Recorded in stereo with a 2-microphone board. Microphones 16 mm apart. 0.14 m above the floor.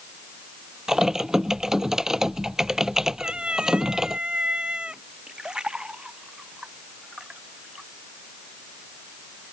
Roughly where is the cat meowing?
Right.